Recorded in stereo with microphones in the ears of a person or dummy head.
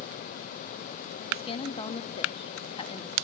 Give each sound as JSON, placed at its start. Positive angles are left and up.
{"t": 1.3, "sound": "a woman speaking", "side_deg": 25, "distance_m": 1.2}